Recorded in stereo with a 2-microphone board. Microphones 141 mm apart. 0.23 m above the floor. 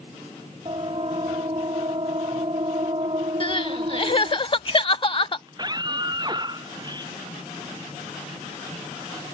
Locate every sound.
0.7 s a siren: 40° right (ahead or behind); by 4.4 s 45° right (ahead or behind)
3.4 s crying: 40° left (ahead or behind)
5.5 s a scream: 30° right (ahead or behind)